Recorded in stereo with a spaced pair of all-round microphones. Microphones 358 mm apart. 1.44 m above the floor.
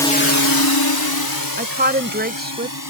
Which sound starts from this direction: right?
A woman speaking, at 1.6 s.